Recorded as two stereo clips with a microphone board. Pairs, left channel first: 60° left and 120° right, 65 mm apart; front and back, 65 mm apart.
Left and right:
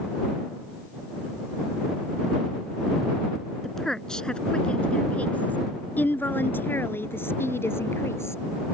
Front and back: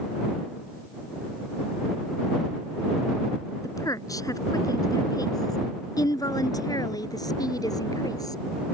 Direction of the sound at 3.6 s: 25° right.